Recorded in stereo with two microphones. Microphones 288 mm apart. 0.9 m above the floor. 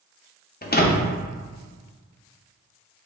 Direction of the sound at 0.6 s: 35° left (ahead or behind).